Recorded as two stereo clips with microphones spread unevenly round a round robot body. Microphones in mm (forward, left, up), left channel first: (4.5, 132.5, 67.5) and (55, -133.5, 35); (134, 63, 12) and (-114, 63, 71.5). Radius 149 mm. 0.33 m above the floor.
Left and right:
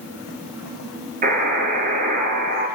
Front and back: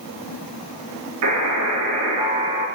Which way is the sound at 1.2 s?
145° right.